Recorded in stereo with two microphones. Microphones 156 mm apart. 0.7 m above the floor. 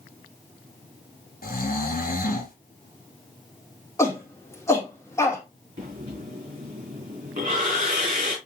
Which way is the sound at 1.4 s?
65° left (ahead or behind).